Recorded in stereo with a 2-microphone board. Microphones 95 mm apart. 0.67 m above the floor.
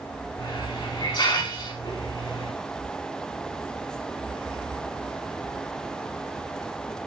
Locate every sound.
0.4 s a hiss: 50° left (ahead or behind), 6.5 m